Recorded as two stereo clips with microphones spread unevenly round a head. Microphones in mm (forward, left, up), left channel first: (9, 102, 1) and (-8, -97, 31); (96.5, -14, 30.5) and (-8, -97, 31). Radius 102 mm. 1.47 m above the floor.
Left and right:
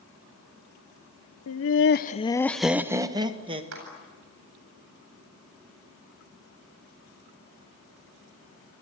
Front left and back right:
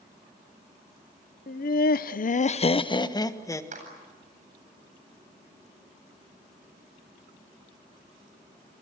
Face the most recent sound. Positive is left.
turn(degrees=-115)